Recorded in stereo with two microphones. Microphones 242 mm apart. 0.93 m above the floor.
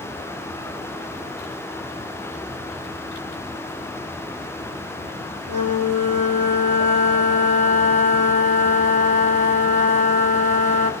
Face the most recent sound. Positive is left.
turn(degrees=-85)